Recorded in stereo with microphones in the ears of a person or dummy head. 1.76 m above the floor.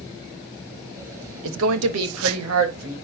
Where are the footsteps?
I don't hear footsteps.